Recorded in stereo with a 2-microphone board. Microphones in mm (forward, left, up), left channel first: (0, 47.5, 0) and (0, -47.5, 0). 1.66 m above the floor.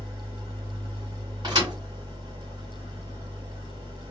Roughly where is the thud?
Right.